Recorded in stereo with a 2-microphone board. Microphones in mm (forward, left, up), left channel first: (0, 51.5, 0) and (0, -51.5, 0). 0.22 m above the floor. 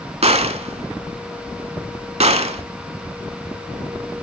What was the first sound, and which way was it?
A gunshot, 70° right (ahead or behind).